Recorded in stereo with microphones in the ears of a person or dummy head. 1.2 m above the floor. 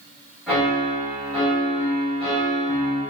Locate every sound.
0.5 s a piano: 5° right (ahead or behind), 1.1 m